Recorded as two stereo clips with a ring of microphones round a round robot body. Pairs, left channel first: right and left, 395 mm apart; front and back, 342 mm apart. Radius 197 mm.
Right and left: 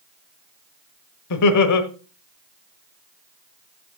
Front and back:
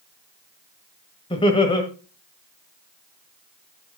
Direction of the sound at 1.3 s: 70° right.